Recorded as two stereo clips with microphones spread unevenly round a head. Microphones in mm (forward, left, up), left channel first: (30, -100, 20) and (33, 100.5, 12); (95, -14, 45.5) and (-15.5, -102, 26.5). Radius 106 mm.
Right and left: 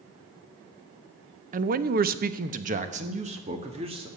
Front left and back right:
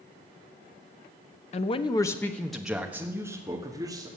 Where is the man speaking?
65° left, 0.7 m; by 4.1 s 155° left, 1.9 m.